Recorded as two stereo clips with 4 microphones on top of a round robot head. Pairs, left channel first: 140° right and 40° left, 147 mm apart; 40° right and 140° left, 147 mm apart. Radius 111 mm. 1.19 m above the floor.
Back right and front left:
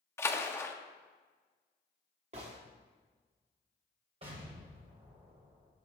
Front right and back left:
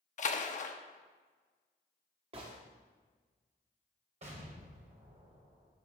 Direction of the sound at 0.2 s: 65° right.